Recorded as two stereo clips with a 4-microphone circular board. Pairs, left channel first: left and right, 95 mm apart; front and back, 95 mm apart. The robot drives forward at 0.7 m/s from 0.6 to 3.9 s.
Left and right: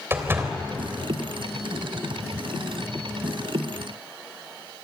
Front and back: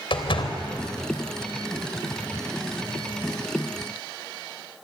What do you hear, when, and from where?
0.1 s a door slam: 25° right, 3 m